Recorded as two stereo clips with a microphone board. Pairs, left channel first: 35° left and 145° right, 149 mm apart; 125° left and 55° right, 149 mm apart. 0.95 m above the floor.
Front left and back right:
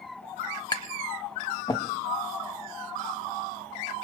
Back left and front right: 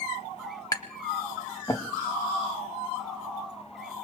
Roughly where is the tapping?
Left.